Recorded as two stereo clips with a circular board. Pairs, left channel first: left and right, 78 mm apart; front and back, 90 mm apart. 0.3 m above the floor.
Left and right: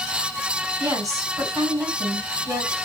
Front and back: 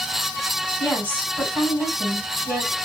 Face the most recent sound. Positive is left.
turn(degrees=-115)